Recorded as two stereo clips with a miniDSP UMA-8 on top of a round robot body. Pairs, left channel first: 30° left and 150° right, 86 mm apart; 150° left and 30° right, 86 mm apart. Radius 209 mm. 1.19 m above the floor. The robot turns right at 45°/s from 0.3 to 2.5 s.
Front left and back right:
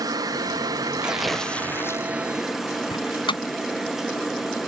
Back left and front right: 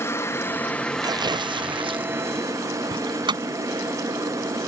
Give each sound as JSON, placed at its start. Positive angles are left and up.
{"t": 0.0, "sound": "a helicopter", "azimuth_deg": -165}
{"t": 1.0, "sound": "tearing paper", "azimuth_deg": -70}
{"t": 2.9, "sound": "a door slam", "azimuth_deg": 0}